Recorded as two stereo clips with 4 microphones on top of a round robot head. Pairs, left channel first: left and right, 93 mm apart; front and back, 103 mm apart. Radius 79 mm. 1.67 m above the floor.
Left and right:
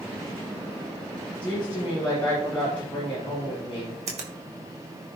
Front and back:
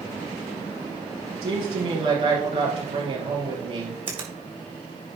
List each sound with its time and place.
1.4 s a woman speaking: 170° left, 2.5 m
4.1 s a finger snap: 120° right, 1.6 m